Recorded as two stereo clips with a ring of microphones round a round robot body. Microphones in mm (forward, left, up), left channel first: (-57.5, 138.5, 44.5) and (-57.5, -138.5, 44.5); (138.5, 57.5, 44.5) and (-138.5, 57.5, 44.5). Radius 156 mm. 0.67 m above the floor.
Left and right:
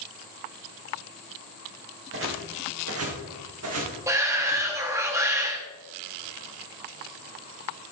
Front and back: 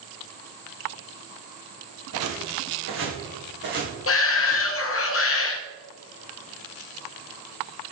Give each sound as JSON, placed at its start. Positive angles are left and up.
{"t": 2.1, "sound": "footsteps", "azimuth_deg": -135, "distance_m": 3.0}
{"t": 4.1, "sound": "a shout", "azimuth_deg": -15, "distance_m": 1.0}